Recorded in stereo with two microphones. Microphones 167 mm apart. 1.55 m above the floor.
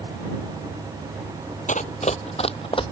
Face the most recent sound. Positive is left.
turn(degrees=30)  # may be behind; listen again after turning